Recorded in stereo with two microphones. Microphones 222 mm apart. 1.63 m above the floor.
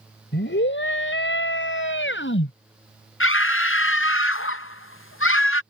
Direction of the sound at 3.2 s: 80° left.